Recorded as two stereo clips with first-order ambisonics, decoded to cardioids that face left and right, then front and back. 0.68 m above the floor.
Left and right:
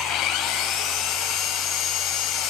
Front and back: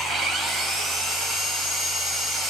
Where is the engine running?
120° left, 3 m.